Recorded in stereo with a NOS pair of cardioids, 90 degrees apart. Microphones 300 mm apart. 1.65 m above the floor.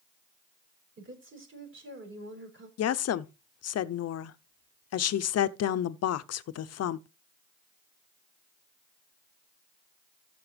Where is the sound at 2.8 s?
55° left, 0.8 m.